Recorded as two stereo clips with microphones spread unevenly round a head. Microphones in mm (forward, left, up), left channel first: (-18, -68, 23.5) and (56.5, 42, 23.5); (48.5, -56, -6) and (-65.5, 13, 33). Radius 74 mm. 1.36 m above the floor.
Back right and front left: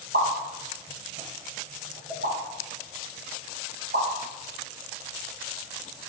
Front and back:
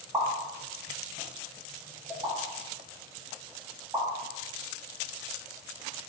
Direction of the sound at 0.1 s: 85° left.